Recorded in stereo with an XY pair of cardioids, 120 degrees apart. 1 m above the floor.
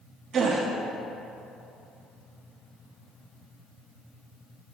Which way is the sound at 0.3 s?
55° right.